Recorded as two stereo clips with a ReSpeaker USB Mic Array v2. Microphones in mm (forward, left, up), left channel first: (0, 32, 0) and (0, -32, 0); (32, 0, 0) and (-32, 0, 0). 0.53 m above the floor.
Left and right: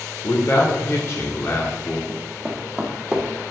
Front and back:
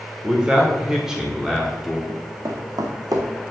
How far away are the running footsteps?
About 2 m.